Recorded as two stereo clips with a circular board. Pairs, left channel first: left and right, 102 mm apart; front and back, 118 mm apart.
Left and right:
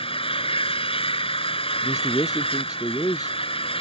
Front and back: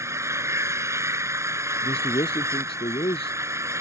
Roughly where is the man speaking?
Ahead left.